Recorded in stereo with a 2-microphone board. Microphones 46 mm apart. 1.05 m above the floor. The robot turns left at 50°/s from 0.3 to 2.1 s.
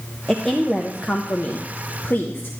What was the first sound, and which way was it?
A woman speaking, 170° left.